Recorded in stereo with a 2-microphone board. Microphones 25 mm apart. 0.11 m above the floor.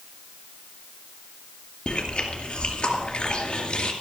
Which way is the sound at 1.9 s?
45° left (ahead or behind).